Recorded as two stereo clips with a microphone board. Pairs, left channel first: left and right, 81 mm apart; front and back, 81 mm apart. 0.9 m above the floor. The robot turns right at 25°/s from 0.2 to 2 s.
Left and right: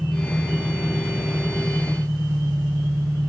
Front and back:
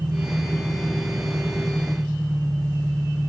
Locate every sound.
0.0 s an engine running: 175° right, 5 m; by 3.3 s 130° right, 5 m